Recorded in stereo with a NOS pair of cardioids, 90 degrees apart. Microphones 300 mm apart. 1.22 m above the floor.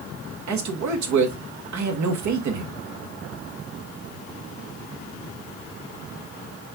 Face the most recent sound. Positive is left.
turn(degrees=-70)